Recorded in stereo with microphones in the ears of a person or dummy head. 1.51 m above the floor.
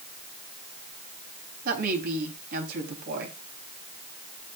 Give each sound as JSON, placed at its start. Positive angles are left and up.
{"t": 1.6, "sound": "a woman speaking", "side_deg": -55, "distance_m": 3.5}